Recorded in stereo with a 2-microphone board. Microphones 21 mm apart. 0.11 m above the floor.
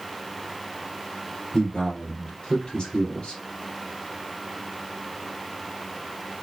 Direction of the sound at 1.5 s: 45° left (ahead or behind).